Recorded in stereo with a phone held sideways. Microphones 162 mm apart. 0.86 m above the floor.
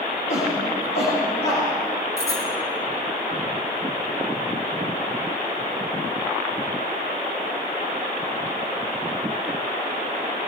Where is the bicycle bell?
20° left (ahead or behind), 6 m.